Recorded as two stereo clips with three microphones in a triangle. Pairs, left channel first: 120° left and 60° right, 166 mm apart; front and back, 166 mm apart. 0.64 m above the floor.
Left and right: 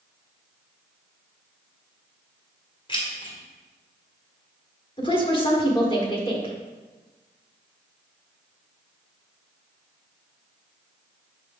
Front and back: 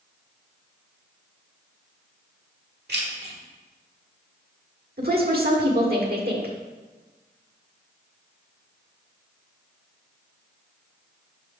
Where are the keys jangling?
Straight behind, 1.6 m.